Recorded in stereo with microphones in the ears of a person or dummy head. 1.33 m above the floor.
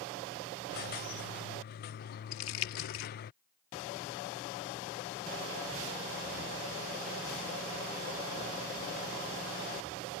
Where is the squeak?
45° left (ahead or behind).